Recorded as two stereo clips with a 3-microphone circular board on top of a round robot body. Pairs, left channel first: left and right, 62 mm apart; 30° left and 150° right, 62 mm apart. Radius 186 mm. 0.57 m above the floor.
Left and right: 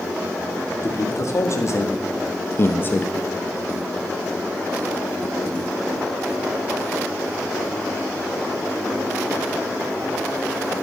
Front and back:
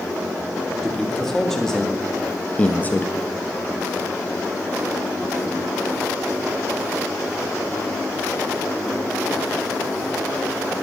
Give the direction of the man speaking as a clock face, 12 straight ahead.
8 o'clock.